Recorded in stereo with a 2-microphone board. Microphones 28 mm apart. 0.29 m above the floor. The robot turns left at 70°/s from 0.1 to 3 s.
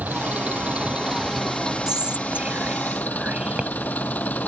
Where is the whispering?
25° right (ahead or behind); by 3.7 s 45° right (ahead or behind).